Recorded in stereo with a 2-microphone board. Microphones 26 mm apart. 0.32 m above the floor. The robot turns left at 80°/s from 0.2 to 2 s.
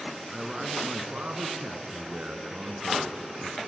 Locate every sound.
0.3 s a man speaking: 5° left, 3 m; by 3.6 s 130° right, 3 m